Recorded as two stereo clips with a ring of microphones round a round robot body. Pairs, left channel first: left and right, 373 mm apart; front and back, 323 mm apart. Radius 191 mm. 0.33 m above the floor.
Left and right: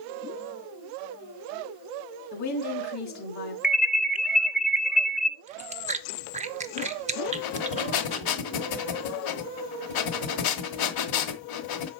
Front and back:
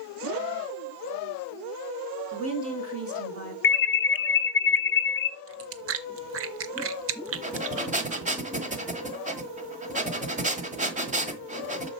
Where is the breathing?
115° left, 1.4 m.